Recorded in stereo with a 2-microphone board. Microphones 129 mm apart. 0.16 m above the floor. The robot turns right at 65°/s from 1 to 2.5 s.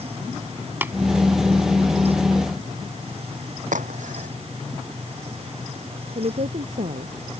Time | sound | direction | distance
0.8 | tapping | 15° right (ahead or behind) | ?
3.7 | a crack | 75° right (ahead or behind) | ?
6.2 | a woman speaking | 65° right (ahead or behind) | ?